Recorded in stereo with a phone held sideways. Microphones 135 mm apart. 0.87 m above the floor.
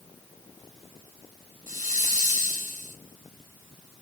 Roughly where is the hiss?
Right.